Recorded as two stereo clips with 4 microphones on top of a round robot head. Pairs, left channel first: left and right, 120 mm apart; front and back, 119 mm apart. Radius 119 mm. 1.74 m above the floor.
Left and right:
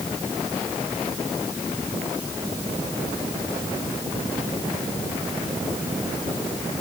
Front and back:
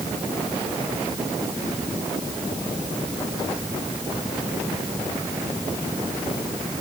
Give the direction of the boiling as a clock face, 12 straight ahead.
I don't hear boiling.